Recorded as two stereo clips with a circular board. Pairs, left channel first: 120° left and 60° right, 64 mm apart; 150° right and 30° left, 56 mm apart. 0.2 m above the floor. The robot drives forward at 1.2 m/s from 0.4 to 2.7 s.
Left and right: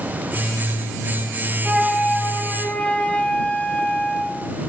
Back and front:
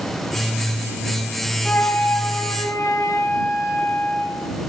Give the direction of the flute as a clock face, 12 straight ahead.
4 o'clock.